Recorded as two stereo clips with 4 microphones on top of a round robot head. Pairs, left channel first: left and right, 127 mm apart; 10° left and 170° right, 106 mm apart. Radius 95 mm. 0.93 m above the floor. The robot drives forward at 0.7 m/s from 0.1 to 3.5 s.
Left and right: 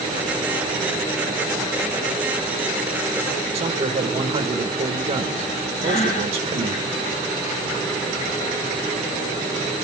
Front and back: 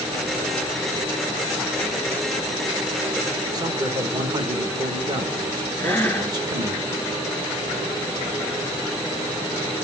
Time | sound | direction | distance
3.5 | a man speaking | 125° right | 1.0 m
5.8 | breathing | 80° left | 2.5 m